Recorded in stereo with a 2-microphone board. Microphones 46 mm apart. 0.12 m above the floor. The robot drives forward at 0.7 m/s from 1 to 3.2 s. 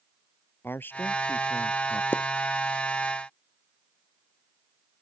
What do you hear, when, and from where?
0.6 s a man speaking: 50° left (ahead or behind); by 2.0 s 40° left (ahead or behind)
2.1 s a pop: 50° left (ahead or behind)